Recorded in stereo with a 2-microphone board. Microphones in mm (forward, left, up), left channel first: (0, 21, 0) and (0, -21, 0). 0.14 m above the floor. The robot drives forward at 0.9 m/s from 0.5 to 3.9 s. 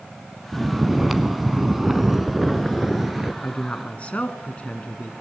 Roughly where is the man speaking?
Left.